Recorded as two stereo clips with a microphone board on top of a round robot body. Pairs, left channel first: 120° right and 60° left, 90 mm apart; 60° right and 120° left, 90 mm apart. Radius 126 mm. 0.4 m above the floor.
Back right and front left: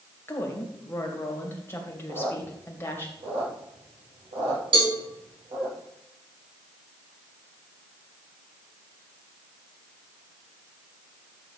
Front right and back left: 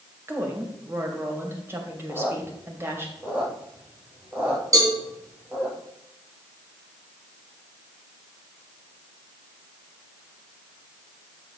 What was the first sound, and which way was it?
A woman speaking, straight behind.